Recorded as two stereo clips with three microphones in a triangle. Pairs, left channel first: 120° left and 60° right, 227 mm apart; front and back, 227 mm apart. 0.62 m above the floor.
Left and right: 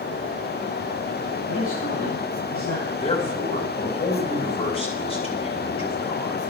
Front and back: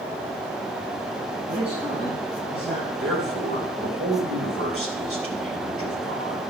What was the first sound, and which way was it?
A man speaking, 120° left.